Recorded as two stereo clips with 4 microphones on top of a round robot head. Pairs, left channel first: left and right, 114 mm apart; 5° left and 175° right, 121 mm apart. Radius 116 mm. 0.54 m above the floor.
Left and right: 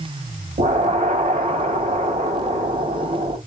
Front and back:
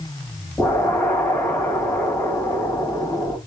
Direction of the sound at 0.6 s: 75° right.